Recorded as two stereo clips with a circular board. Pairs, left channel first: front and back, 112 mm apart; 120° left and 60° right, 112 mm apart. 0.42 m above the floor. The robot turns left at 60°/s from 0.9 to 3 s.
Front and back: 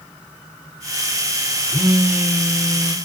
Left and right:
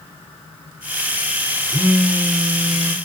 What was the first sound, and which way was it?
A phone buzzing, 105° right.